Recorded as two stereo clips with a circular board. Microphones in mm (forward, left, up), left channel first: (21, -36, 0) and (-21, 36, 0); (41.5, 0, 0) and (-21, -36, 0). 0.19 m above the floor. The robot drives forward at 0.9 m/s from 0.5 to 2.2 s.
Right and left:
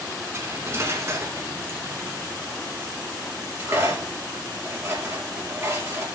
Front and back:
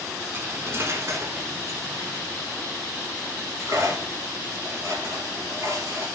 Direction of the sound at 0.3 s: 160° left.